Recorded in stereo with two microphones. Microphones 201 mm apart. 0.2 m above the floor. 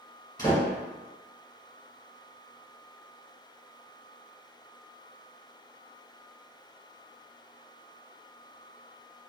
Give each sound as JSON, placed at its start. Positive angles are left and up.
{"t": 0.4, "sound": "a door slam", "side_deg": 20, "distance_m": 1.6}